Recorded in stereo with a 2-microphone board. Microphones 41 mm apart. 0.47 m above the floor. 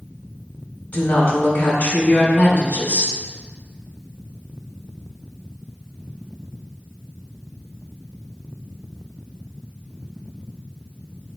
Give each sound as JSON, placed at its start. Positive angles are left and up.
{"t": 0.9, "sound": "a woman speaking", "side_deg": 40, "distance_m": 2.5}